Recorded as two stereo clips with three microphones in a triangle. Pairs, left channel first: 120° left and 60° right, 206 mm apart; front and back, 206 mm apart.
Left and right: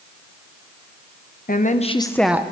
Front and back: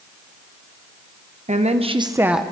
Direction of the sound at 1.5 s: 140° left.